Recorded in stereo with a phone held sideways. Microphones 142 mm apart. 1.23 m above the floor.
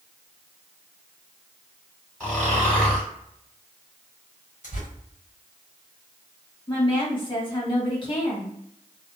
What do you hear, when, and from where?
2.2 s snoring: 10° left (ahead or behind), 1.6 m
4.6 s tearing paper: 60° left (ahead or behind), 1.3 m
6.7 s a woman speaking: 35° left (ahead or behind), 1.3 m